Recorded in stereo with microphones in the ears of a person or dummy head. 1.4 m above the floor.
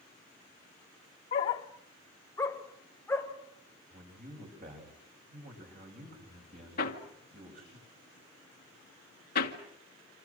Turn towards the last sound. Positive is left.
turn(degrees=50)  # may be behind; listen again after turning